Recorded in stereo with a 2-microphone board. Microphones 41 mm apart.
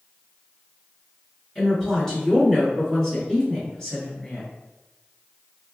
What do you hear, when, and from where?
1.6 s a woman speaking: 15° left (ahead or behind), 1.6 m; by 4.5 s 20° left (ahead or behind), 1.6 m